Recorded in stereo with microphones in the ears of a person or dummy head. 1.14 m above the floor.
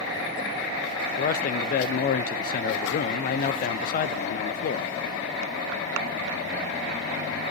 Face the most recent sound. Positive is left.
turn(degrees=45)  # may be behind; listen again after turning